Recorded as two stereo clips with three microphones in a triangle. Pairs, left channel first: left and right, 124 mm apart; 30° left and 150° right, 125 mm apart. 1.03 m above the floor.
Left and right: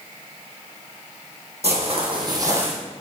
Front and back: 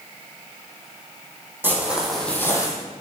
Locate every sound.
1.6 s footsteps: 80° right, 1.9 m; by 2.7 s 20° right, 1.6 m